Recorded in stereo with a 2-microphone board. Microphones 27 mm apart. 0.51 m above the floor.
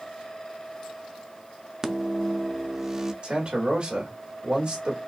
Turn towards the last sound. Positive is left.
turn(degrees=-40)  # may be behind; listen again after turning